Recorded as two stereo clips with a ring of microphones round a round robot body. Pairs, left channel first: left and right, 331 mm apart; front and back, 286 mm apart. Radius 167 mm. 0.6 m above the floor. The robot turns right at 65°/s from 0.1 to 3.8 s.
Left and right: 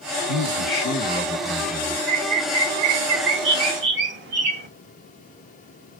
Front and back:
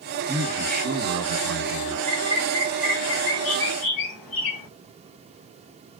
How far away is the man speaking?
About 1.9 m.